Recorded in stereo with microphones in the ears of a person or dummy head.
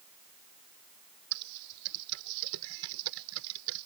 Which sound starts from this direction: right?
Typing on a keyboard, at 1.3 s.